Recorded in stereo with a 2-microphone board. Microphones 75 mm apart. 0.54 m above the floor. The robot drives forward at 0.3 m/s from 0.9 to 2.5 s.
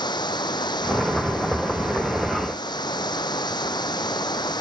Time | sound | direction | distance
0.0 | running water | 75° left (ahead or behind) | ?